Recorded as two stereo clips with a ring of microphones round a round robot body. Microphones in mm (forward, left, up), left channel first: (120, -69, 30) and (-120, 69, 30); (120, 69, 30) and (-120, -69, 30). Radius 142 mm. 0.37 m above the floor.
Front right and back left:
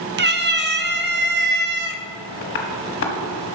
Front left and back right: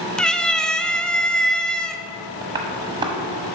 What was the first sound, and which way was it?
A cat meowing, 115° left.